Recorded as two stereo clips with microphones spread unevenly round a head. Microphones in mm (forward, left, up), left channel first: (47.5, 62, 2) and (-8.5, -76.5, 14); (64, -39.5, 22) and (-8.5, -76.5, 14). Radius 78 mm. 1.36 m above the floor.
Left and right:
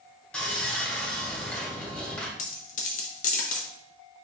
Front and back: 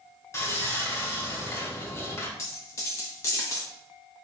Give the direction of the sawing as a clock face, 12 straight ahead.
1 o'clock.